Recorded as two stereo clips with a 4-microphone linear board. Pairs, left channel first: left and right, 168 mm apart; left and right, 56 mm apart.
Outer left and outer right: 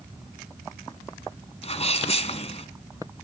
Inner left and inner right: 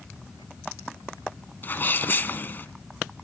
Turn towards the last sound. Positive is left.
turn(degrees=40)  # may be behind; listen again after turning